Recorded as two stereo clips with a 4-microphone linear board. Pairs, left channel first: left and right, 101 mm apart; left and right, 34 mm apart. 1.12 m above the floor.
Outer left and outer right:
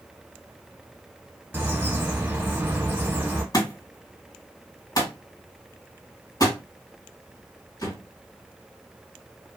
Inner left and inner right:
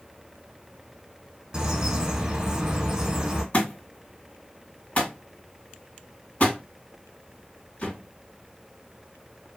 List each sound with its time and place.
1.5 s a bird: 25° right (ahead or behind), 1.1 m
3.5 s a thud: 40° left (ahead or behind), 2.5 m